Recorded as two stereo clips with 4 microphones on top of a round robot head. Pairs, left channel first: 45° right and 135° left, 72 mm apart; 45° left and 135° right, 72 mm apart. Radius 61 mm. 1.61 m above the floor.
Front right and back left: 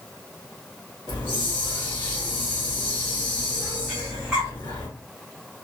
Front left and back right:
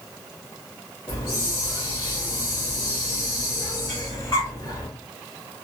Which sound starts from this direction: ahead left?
Breathing, at 3.9 s.